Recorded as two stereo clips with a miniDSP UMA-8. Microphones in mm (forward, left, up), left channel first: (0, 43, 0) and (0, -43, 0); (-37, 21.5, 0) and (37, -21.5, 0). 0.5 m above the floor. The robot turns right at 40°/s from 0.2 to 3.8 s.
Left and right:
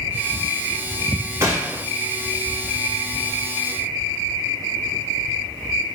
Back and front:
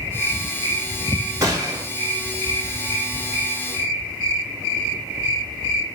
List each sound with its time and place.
1.4 s a gunshot: 60° right, 0.9 m; by 1.9 s 45° right, 0.9 m